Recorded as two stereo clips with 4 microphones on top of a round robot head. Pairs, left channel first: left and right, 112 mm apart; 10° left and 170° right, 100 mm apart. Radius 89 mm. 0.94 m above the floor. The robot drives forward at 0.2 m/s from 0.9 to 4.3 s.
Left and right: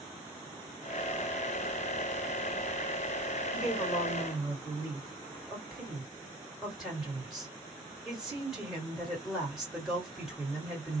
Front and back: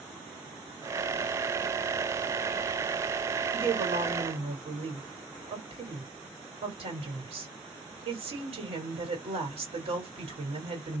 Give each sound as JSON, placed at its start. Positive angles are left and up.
{"t": 3.5, "sound": "a woman speaking", "azimuth_deg": -175, "distance_m": 1.4}